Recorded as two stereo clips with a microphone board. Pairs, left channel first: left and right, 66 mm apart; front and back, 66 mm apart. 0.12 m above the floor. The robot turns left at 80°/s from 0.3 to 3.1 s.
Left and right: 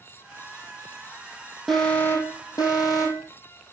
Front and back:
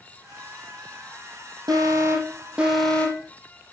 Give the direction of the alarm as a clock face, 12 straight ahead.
6 o'clock.